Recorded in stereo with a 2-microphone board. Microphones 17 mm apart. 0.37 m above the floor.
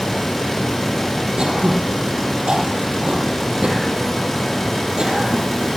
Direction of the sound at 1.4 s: 70° right (ahead or behind).